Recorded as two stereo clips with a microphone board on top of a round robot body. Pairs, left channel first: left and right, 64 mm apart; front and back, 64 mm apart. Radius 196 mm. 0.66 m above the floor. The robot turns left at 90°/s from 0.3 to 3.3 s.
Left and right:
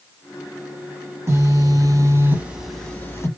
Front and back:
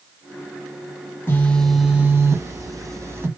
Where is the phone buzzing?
50° right, 1.6 m; by 3.3 s 130° left, 1.6 m.